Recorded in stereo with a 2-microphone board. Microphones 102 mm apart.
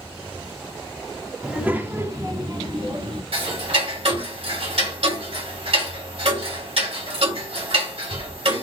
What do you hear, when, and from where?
1.4 s a child speaking: 10° right (ahead or behind), 1.2 m; by 3.2 s 65° right (ahead or behind), 1.4 m
3.3 s ticking: 70° right (ahead or behind), 3 m